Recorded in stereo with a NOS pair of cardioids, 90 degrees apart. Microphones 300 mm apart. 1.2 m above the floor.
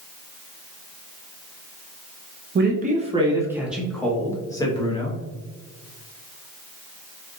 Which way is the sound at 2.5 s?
35° right.